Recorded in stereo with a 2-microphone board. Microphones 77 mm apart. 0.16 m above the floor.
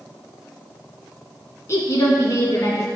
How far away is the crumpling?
I don't hear crumpling.